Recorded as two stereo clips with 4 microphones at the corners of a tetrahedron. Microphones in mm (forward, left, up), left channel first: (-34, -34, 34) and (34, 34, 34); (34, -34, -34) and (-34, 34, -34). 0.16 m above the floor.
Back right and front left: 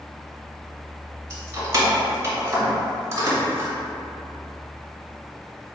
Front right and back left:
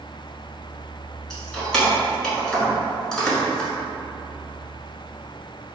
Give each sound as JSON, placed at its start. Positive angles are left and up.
{"t": 1.3, "sound": "keys jangling", "azimuth_deg": 35, "distance_m": 1.2}